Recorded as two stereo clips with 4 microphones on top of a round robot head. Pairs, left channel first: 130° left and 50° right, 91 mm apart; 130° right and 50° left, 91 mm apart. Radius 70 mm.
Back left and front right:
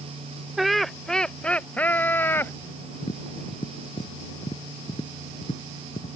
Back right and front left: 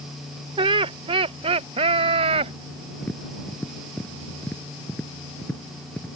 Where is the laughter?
35° left; by 2.5 s 65° left.